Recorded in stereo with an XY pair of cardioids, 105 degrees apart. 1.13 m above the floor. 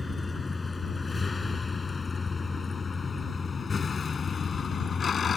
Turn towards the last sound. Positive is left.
turn(degrees=45)